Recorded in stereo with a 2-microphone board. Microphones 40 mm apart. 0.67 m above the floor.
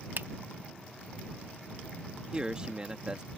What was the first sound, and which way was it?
A finger snap, 55° right (ahead or behind).